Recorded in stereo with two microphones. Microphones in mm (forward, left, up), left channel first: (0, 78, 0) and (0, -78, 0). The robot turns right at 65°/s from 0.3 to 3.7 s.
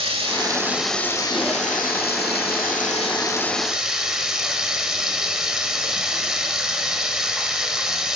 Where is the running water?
35° right, 1.2 m; by 8.2 s 175° right, 1.2 m.